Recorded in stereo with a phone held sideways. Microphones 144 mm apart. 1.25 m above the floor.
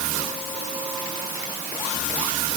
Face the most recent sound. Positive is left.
No sound to turn to.